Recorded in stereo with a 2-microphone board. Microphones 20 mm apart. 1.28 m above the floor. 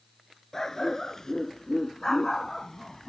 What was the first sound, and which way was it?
A dog barking, 25° left (ahead or behind).